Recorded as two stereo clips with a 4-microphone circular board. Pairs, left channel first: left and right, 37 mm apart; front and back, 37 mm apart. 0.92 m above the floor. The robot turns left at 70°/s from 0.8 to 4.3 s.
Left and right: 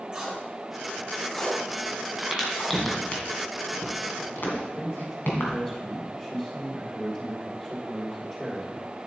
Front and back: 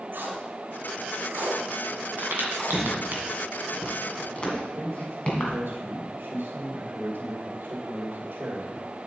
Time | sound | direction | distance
0.1 | tape being pulled | 150° right | 2.5 m
2.2 | a crack | 155° right | 2 m
4.5 | a man speaking | 165° left | 2 m